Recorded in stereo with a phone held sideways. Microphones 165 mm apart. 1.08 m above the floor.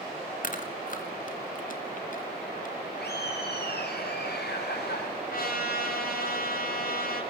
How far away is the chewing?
About 2.5 m.